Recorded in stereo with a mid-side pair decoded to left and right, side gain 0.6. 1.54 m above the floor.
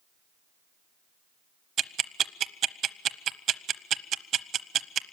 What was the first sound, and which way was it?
Ticking, 50° right.